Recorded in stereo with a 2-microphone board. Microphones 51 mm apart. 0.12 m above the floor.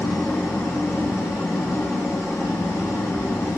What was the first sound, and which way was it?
An engine running, 80° left.